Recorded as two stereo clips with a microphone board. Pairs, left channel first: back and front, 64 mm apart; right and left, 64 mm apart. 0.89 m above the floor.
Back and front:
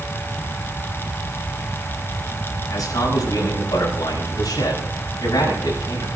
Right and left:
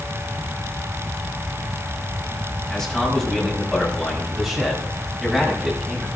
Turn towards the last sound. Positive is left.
turn(degrees=180)